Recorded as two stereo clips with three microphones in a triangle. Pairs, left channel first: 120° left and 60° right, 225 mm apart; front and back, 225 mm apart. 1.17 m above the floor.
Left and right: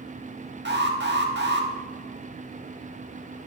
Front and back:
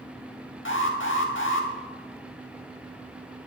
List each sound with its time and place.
0.7 s an alarm: 25° right, 1.3 m